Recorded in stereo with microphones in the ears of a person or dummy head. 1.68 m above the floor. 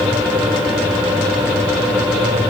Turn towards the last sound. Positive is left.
No sound to turn to.